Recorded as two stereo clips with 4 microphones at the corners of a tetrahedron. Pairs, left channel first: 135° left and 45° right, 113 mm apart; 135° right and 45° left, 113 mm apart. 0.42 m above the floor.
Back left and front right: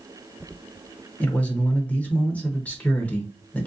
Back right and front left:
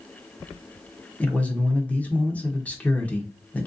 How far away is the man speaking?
About 0.8 m.